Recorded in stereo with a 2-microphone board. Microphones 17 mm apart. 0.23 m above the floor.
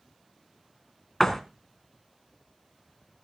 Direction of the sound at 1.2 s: 20° left (ahead or behind).